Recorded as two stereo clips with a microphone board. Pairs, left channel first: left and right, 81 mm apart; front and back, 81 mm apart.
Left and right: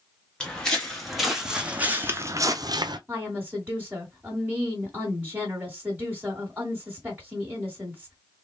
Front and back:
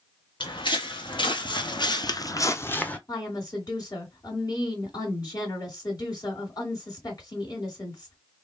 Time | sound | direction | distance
0.4 | footsteps | 10° left | 1.2 m
3.1 | a woman speaking | 25° right | 1.8 m